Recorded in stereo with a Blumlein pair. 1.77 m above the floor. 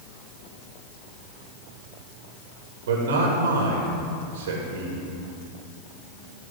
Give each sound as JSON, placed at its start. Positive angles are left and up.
{"t": 2.9, "sound": "a man speaking", "azimuth_deg": -60, "distance_m": 2.0}